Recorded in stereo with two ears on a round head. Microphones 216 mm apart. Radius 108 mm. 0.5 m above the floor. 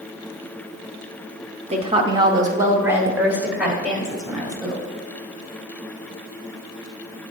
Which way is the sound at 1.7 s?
25° right (ahead or behind).